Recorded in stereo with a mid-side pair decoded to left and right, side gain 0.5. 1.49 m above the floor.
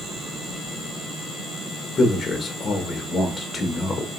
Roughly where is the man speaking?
Ahead left.